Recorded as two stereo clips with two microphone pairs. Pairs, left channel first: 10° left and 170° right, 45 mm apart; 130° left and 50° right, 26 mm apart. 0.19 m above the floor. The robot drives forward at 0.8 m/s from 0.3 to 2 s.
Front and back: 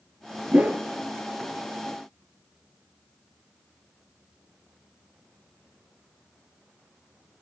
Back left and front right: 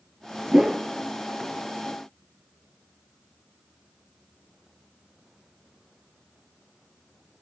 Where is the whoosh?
115° right, 1.5 m; by 0.8 s 120° right, 1.6 m.